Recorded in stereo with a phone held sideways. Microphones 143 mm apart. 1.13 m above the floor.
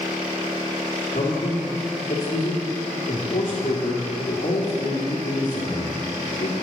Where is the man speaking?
70° left (ahead or behind), 2.5 m.